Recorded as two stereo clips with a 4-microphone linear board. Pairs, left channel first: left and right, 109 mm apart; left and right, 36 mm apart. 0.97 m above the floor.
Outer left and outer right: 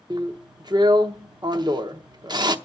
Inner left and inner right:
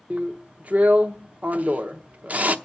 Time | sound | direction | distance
0.1 | a drill | 40° right (ahead or behind) | 0.7 m